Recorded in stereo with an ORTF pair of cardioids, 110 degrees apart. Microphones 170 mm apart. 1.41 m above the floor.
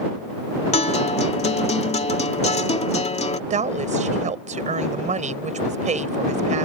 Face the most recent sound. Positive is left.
turn(degrees=-45)